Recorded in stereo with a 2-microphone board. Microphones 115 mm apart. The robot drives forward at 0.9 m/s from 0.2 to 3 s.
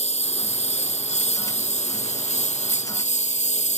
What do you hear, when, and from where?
0.0 s a lawn mower: 70° left (ahead or behind); by 3.8 s 85° left